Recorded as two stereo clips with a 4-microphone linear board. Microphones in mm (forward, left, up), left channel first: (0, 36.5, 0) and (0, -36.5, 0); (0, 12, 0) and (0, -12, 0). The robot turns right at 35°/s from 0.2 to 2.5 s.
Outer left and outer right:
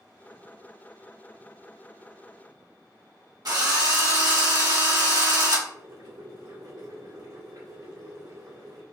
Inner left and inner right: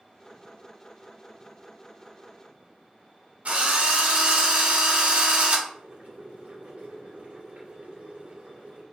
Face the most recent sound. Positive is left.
turn(degrees=-65)  # may be behind; listen again after turning